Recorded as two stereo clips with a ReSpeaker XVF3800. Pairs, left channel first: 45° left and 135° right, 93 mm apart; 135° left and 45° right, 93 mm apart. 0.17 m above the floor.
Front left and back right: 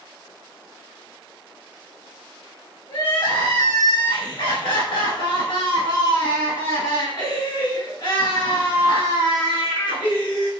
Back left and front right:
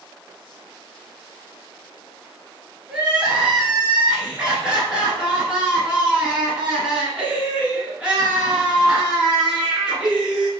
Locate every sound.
2.9 s crying: 35° left, 1.6 m